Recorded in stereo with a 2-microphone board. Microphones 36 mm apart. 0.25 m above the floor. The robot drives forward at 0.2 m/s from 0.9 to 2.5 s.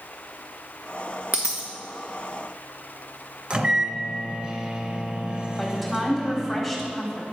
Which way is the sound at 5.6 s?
Centre (ahead or behind).